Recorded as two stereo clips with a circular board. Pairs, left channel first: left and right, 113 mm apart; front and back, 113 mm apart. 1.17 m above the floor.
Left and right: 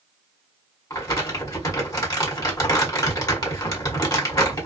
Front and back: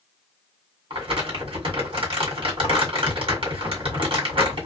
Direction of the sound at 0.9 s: 145° left.